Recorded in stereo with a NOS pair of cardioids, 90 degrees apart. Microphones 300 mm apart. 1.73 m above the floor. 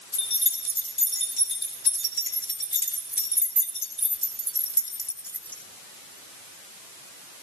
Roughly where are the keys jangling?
Ahead left.